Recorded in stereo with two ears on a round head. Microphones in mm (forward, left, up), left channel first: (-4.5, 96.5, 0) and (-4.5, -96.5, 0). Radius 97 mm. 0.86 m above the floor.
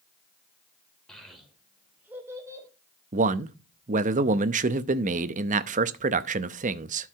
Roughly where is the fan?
No fan in this recording.